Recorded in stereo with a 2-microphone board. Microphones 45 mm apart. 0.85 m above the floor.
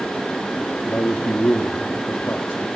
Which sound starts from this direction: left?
A man speaking, at 0.8 s.